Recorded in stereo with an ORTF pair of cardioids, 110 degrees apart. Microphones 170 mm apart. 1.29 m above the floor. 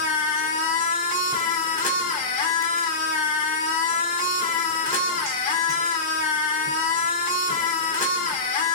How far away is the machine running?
About 1.6 m.